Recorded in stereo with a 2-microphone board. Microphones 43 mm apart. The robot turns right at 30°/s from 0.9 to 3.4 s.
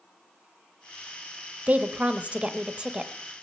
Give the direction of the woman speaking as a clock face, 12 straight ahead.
3 o'clock.